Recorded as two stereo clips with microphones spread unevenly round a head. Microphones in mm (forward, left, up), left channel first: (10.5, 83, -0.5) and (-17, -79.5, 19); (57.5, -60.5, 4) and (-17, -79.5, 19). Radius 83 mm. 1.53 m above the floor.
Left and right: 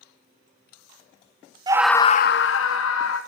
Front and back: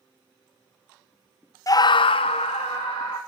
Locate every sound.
1.7 s a scream: 35° right, 0.7 m; by 3.2 s 80° left, 1.6 m